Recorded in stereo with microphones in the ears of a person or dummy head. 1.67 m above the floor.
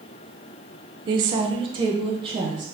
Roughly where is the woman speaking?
Right.